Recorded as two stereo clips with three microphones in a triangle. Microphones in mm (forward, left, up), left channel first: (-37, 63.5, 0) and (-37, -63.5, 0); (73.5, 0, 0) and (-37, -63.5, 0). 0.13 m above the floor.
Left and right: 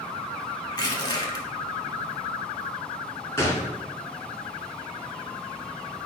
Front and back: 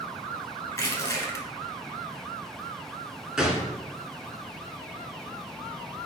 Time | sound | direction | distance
0.7 | crushing | 70° left | 0.7 m
3.4 | a gunshot | 130° left | 1.0 m